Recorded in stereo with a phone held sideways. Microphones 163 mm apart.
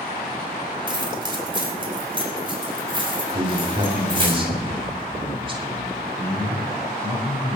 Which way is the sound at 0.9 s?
30° right (ahead or behind).